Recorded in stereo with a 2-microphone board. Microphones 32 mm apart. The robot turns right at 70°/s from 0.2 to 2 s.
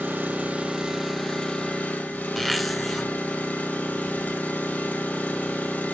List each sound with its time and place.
0.0 s an engine running: 60° right, 2.5 m; by 5.9 s 65° left, 2.5 m
2.4 s a zipper: centre (ahead or behind), 1.1 m